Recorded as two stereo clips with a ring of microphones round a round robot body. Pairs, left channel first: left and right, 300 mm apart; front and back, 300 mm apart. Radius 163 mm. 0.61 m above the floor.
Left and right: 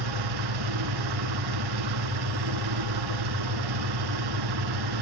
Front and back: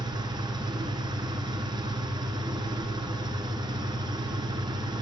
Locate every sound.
0.0 s an engine running: 100° right, 2.5 m